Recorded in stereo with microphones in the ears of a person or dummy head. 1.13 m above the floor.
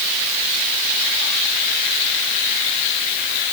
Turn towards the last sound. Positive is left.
No sound to turn to.